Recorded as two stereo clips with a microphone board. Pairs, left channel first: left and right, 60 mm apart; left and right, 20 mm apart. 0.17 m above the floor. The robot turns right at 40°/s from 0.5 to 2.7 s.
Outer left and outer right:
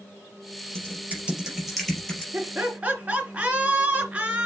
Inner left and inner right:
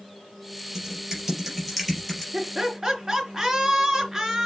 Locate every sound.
0.8 s typing on a keyboard: 40° right (ahead or behind), 4 m; by 2.2 s 15° left (ahead or behind), 4 m
2.3 s laughter: 35° right (ahead or behind), 3 m; by 4.5 s 25° right (ahead or behind), 3 m